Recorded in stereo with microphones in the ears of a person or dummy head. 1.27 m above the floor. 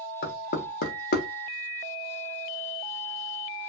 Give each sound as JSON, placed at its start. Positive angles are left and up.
{"t": 0.2, "sound": "knocking", "side_deg": 55, "distance_m": 0.8}